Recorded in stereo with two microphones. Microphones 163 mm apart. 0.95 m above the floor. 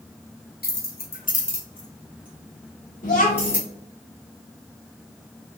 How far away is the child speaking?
About 0.8 m.